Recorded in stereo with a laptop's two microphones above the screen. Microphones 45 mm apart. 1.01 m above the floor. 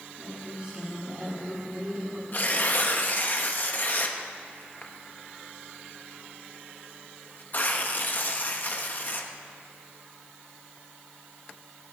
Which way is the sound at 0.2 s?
35° right (ahead or behind).